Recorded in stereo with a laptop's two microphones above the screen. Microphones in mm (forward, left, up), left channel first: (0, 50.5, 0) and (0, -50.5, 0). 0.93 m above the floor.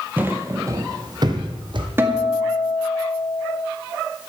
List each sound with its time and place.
0.2 s footsteps: 15° right (ahead or behind), 1.1 m; by 1.9 s 55° right (ahead or behind), 2.0 m
2.0 s a guitar: 25° right (ahead or behind), 1.9 m